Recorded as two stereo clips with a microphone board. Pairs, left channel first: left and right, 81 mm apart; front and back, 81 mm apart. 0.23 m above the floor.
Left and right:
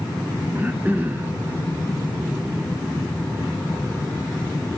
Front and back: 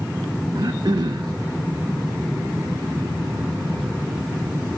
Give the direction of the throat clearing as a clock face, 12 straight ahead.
5 o'clock.